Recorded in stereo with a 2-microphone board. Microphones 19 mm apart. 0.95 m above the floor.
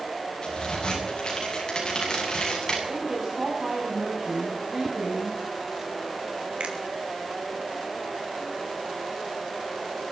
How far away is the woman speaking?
About 8 m.